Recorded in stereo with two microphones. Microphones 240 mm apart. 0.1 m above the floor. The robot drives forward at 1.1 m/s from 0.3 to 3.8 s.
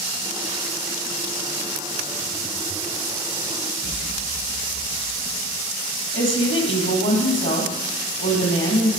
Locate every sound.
3.8 s an explosion: 65° right (ahead or behind), 3 m
6.1 s a woman speaking: 55° left (ahead or behind), 3 m